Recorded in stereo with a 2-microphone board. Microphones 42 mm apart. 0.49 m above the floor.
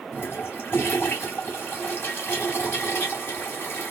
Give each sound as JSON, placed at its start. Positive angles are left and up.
{"t": 0.1, "sound": "a toilet flushing", "side_deg": 55, "distance_m": 2.5}